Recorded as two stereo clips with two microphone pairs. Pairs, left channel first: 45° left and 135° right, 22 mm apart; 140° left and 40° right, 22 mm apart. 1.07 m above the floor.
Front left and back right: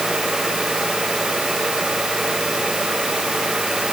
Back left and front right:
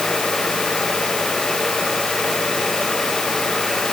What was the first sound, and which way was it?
Only background noise.